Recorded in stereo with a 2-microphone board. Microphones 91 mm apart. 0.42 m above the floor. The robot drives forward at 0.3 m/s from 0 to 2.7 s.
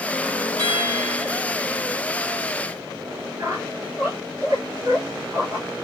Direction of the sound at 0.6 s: 45° right (ahead or behind).